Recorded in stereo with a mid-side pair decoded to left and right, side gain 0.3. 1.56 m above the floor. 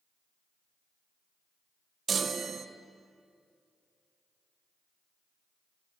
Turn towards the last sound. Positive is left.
turn(degrees=-65)